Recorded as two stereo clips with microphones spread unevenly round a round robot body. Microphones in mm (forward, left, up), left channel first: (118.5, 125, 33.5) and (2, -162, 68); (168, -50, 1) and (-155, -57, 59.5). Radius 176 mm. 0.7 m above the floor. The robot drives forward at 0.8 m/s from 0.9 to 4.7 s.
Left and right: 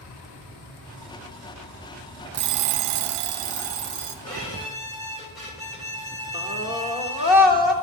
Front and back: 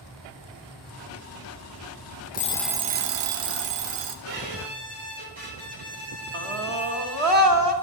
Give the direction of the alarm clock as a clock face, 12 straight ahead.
2 o'clock.